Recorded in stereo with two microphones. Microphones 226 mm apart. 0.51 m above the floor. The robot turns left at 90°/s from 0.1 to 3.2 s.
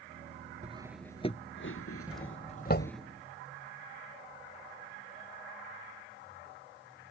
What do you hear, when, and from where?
0.6 s cutlery clinking: 30° right (ahead or behind); by 3.0 s 5° right (ahead or behind)
2.1 s a doorbell: 5° right (ahead or behind); by 2.9 s 60° left (ahead or behind)